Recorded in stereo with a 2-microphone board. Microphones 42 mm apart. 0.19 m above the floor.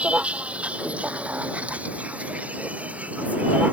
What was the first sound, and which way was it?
A vehicle, 30° right (ahead or behind).